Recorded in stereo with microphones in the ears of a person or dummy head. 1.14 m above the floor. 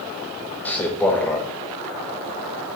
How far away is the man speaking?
About 0.8 m.